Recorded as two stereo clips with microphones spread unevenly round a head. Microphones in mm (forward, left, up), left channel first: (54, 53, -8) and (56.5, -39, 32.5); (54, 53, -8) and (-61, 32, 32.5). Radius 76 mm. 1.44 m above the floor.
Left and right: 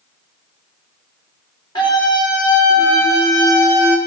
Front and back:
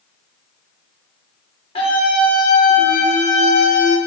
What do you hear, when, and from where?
1.8 s a scream: 50° left, 5.5 m; by 4.0 s 20° left, 5 m